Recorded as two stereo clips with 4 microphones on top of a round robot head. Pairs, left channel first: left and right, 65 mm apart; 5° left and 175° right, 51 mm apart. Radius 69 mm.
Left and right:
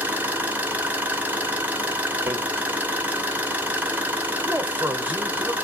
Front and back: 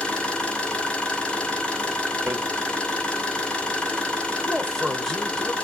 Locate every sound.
0.0 s an engine running: 45° right, 1.0 m
2.3 s hammering: 135° right, 0.6 m
4.5 s a man speaking: 70° right, 0.9 m